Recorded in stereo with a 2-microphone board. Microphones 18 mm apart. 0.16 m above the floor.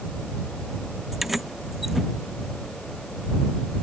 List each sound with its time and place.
1.1 s keys jangling: 5° right (ahead or behind)